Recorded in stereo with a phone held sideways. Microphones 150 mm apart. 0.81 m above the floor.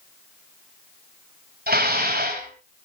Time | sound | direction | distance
1.7 | dishes clattering | 80° right | 3 m